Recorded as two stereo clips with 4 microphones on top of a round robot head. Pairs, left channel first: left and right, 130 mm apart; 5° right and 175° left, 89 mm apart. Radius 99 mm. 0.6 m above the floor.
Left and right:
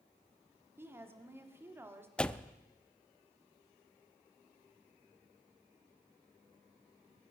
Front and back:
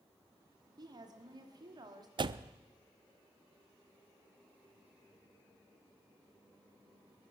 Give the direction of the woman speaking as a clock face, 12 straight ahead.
5 o'clock.